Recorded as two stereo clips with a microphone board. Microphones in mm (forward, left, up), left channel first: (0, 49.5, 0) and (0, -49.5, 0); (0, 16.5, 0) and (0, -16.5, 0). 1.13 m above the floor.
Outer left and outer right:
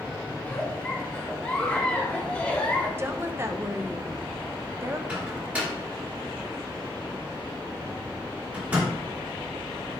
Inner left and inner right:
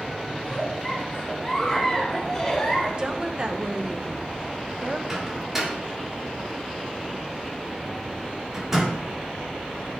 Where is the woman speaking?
25° right (ahead or behind), 0.7 m.